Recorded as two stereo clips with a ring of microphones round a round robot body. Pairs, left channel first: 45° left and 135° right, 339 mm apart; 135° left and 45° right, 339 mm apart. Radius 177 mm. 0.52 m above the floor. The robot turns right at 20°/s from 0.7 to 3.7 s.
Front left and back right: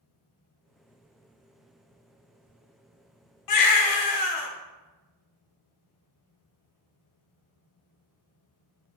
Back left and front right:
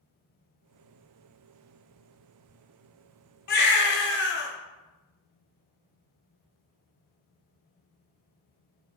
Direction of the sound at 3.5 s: 70° left.